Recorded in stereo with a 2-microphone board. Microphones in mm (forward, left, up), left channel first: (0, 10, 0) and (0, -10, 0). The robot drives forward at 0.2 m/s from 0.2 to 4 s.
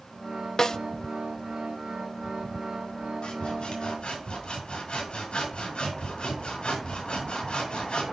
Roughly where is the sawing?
Left.